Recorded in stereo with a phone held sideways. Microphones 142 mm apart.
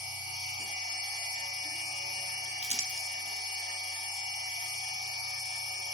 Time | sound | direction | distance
0.0 | a machine running | 60° left (ahead or behind) | 5 m
2.6 | crumpling | 50° right (ahead or behind) | 1.3 m